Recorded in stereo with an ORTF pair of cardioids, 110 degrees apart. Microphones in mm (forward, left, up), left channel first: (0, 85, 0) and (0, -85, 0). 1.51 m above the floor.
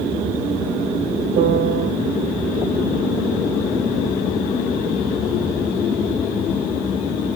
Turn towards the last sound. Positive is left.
turn(degrees=-65)